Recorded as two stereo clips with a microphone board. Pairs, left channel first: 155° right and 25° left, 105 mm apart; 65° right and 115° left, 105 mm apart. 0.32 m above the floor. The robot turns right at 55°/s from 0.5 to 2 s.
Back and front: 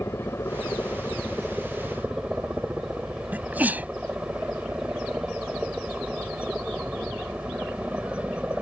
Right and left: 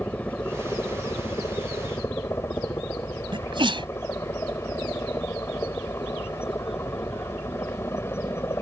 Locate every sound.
0.0 s a helicopter: 125° right; by 8.6 s 40° right
3.3 s a sneeze: 95° left